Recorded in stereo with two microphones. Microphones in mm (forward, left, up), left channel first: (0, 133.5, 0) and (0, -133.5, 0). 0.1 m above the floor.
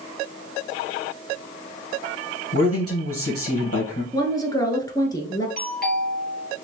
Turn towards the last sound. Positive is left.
turn(degrees=35)  # may be behind; listen again after turning